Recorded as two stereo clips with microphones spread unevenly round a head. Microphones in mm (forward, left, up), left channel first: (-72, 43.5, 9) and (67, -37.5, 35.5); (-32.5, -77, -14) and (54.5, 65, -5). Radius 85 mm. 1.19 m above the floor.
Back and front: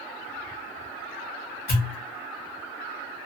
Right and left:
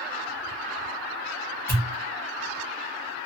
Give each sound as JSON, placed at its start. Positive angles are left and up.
{"t": 1.7, "sound": "a pop", "azimuth_deg": 165, "distance_m": 1.4}